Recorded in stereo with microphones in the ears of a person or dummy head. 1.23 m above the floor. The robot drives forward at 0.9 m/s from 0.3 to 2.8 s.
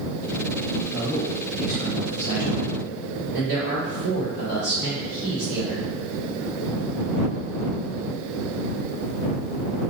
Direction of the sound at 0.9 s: 35° right (ahead or behind).